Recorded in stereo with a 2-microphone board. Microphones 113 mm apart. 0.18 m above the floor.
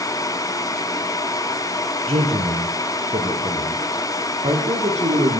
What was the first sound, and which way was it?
A man speaking, 65° right (ahead or behind).